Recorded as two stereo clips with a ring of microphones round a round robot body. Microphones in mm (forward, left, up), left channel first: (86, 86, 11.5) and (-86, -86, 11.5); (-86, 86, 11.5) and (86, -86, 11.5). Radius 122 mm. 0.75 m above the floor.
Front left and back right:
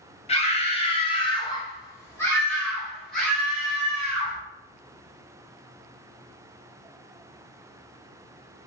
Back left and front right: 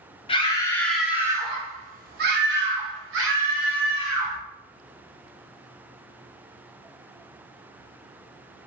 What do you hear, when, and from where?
0.3 s a scream: 85° left, 1.0 m; by 4.4 s 50° right, 1.9 m